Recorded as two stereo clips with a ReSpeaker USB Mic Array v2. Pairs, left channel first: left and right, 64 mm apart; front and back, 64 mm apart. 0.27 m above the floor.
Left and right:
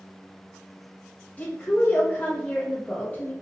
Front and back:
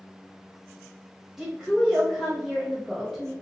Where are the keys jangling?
No keys jangling in this recording.